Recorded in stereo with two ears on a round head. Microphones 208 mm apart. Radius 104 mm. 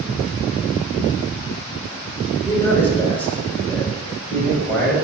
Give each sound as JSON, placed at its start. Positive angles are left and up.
{"t": 2.5, "sound": "a man speaking", "side_deg": 10, "distance_m": 3.5}